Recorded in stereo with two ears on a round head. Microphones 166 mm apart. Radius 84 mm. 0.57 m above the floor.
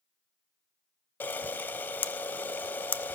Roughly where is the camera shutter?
Centre.